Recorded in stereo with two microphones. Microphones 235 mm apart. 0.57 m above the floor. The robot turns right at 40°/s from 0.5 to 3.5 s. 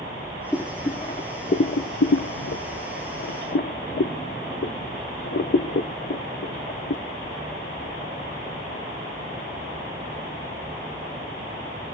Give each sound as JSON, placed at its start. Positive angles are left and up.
{"t": 0.5, "sound": "boiling", "side_deg": 5, "distance_m": 0.7}